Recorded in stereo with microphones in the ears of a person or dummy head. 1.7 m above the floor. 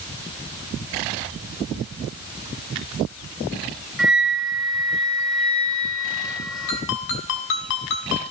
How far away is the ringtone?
About 5 m.